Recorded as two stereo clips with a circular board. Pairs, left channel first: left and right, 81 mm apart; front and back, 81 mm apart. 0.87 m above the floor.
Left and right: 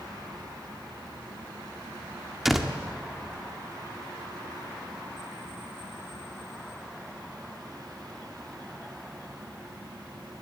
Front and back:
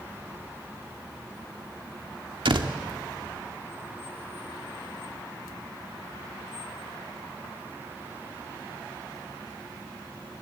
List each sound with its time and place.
2.5 s a door slam: straight behind, 1.7 m